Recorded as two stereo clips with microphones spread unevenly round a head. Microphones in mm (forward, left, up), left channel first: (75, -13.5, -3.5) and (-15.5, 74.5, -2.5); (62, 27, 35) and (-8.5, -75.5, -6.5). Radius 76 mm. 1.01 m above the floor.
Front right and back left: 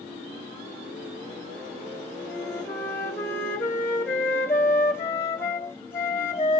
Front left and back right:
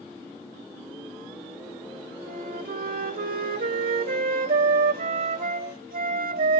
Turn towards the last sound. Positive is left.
turn(degrees=-115)